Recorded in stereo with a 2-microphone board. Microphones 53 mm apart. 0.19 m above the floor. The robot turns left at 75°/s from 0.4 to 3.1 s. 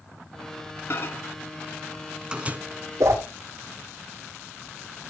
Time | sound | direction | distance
0.9 | a microwave | 50° left (ahead or behind) | 1.2 m
3.0 | a whoosh | 75° right (ahead or behind) | 3 m